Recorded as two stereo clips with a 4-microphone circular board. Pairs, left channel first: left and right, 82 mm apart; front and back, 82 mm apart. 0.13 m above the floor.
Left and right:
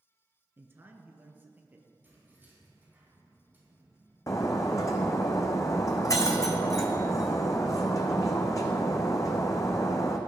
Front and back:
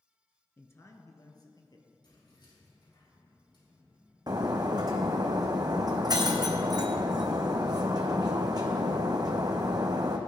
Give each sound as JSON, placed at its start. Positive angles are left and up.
{"t": 0.6, "sound": "a man speaking", "azimuth_deg": -45, "distance_m": 1.3}
{"t": 2.0, "sound": "keys jangling", "azimuth_deg": -25, "distance_m": 4.5}
{"t": 4.3, "sound": "breaking glass", "azimuth_deg": 140, "distance_m": 1.3}